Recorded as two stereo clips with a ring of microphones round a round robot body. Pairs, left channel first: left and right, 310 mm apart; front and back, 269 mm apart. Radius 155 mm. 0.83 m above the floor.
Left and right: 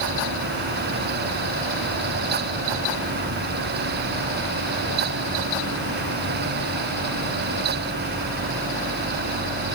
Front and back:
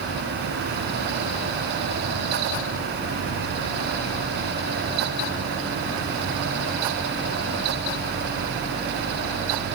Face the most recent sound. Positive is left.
No sound to turn to.